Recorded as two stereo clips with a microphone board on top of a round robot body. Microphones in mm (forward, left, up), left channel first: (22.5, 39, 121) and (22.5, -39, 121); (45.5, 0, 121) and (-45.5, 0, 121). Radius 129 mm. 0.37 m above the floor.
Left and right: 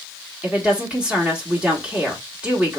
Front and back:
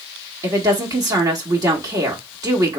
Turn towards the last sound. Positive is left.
turn(degrees=-160)